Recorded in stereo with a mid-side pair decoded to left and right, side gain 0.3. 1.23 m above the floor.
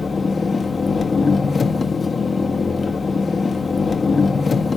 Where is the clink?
I don't hear a clink.